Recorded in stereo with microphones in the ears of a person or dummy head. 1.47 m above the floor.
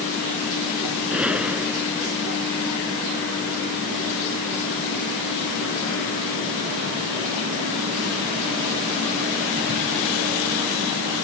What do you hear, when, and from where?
1.1 s a gunshot: 10° right (ahead or behind)